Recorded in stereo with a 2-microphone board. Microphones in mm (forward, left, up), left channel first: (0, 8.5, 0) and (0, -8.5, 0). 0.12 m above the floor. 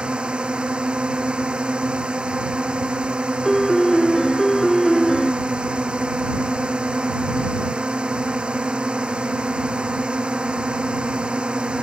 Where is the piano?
15° left (ahead or behind).